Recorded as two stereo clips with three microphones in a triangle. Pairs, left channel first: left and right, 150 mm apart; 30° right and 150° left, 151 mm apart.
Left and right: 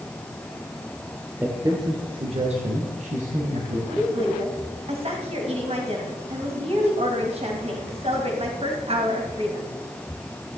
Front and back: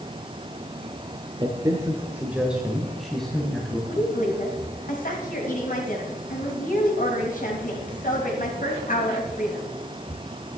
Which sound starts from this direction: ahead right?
A woman speaking, at 3.9 s.